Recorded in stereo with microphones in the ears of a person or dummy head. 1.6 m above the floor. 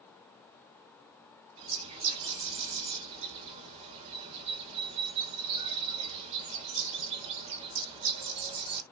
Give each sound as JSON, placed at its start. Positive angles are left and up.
{"t": 1.6, "sound": "a bird", "side_deg": -35, "distance_m": 1.4}